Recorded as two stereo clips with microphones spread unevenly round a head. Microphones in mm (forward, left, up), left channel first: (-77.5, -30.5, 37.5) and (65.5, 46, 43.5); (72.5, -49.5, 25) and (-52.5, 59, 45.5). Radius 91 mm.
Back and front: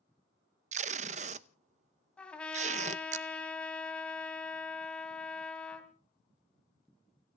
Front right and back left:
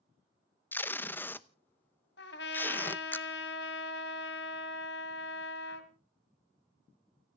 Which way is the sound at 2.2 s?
65° right.